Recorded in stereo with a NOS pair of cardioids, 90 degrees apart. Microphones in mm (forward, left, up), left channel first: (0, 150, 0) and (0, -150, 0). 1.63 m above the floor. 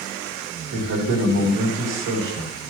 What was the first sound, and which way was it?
A man speaking, 65° right.